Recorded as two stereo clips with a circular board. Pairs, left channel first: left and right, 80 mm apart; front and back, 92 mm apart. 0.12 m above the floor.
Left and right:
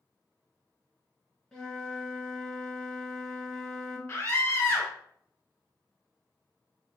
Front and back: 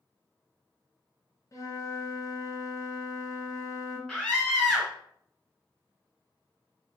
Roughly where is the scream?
Left.